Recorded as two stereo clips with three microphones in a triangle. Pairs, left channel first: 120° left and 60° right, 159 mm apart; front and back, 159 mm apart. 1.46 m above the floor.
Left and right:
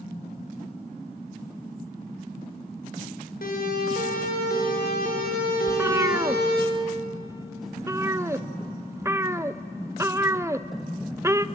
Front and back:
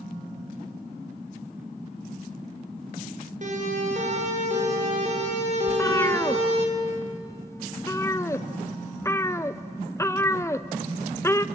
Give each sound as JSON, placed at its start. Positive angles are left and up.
{"t": 3.4, "sound": "a siren", "azimuth_deg": 140, "distance_m": 6.0}
{"t": 5.7, "sound": "a cat meowing", "azimuth_deg": -30, "distance_m": 0.6}